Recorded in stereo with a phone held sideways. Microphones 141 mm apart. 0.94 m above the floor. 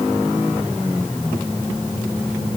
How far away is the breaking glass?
No breaking glass in this recording.